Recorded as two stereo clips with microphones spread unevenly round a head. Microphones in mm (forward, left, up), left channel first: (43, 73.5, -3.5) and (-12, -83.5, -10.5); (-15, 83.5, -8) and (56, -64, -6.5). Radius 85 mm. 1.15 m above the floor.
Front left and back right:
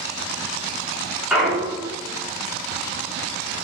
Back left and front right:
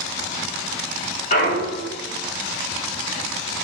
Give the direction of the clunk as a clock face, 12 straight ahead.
7 o'clock.